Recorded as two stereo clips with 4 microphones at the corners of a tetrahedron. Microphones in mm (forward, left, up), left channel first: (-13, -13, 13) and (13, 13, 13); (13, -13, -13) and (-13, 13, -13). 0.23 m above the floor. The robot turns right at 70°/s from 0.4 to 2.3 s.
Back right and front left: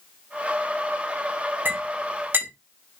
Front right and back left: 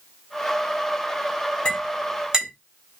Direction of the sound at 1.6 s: 15° left.